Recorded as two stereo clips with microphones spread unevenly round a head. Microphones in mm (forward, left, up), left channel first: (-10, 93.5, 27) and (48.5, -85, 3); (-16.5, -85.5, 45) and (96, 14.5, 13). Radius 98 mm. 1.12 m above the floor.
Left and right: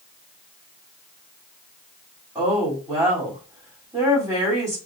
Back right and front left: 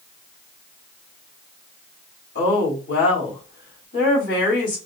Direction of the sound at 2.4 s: 150° right.